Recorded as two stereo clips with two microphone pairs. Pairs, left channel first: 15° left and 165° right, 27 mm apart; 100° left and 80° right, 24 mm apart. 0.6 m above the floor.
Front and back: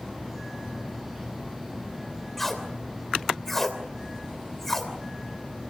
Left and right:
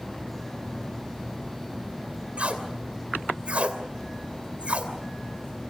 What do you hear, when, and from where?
2.4 s tape being pulled: 65° right, 2.5 m